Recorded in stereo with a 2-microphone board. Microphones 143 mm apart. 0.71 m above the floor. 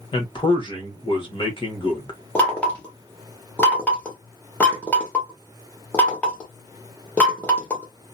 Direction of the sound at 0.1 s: 35° left (ahead or behind).